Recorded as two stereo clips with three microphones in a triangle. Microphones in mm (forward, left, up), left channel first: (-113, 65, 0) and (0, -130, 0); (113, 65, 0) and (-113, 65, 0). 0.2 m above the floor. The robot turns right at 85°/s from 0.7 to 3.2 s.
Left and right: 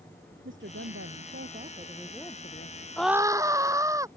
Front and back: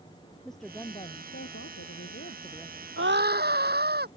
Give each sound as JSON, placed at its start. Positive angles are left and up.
{"t": 0.5, "sound": "a woman speaking", "azimuth_deg": -90}
{"t": 3.0, "sound": "a scream", "azimuth_deg": -155}